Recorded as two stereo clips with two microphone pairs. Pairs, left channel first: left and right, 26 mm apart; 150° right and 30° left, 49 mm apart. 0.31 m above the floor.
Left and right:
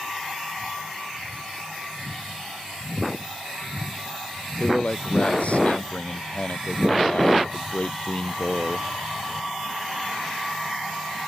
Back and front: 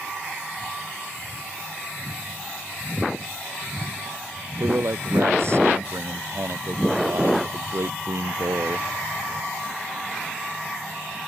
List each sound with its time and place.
4.6 s a man speaking: 55° left